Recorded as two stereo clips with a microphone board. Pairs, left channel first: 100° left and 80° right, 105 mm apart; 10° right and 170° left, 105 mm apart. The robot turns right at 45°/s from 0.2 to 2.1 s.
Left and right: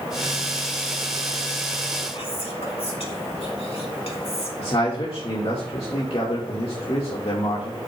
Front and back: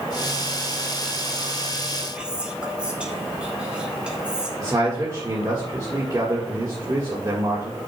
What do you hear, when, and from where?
2.1 s whispering: 90° left, 3.5 m
4.6 s a man speaking: 115° left, 1.7 m